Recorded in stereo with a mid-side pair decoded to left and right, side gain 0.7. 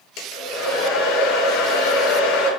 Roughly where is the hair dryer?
Ahead left.